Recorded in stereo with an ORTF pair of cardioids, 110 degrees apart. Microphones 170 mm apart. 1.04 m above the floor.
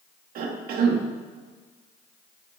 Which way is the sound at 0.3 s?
70° right.